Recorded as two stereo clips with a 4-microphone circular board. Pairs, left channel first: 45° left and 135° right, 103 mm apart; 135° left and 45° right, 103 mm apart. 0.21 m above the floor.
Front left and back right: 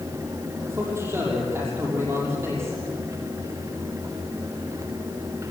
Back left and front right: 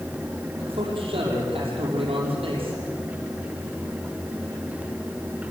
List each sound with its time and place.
0.7 s a man speaking: 70° right, 6 m